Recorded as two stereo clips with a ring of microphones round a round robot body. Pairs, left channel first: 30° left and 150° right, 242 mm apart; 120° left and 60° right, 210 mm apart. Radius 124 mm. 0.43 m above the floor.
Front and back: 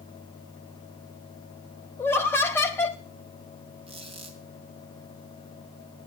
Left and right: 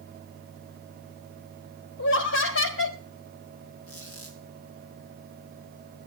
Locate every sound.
2.0 s laughter: 110° left, 1.7 m
3.9 s a squeak: 140° left, 2.5 m